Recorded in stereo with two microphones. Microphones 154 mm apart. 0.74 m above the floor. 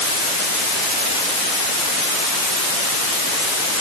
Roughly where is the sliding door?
No sliding door in this recording.